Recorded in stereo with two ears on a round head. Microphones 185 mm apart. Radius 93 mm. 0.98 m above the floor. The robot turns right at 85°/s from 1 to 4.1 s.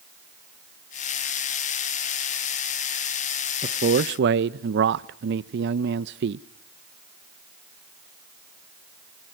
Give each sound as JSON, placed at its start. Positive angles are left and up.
{"t": 3.6, "sound": "a man speaking", "azimuth_deg": -145, "distance_m": 0.5}